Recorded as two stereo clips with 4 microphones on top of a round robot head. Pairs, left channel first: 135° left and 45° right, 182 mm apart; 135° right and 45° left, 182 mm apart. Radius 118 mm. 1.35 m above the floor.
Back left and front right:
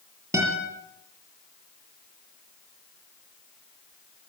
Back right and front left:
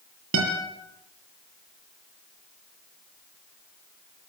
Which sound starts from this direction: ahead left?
A guitar, at 0.3 s.